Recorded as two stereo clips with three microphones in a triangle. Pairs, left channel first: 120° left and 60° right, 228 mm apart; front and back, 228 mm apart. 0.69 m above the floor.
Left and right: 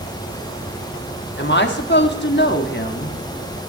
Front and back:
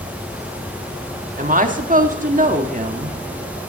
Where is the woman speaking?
140° left, 1.3 m.